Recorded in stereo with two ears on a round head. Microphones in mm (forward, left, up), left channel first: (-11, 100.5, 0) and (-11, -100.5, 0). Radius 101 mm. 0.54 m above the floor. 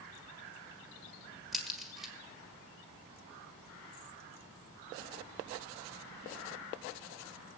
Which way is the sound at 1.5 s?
Centre (ahead or behind).